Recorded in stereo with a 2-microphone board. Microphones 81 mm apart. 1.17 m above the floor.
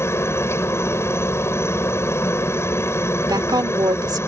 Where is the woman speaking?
55° right (ahead or behind).